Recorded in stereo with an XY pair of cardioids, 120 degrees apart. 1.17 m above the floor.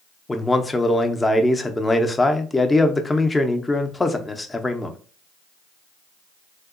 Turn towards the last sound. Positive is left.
turn(degrees=15)